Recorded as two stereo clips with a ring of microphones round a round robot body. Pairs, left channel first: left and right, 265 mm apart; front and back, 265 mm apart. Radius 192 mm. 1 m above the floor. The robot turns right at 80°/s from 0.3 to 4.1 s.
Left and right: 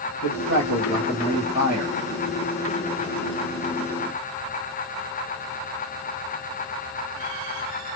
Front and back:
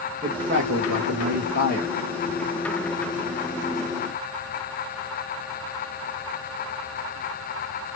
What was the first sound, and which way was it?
A man speaking, 110° left.